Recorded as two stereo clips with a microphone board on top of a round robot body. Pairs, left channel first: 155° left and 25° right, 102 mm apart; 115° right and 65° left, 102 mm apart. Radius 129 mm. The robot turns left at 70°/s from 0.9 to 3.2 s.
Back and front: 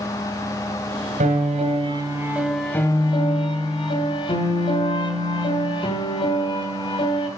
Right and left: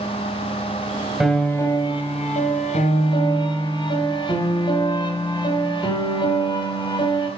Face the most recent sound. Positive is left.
turn(degrees=-160)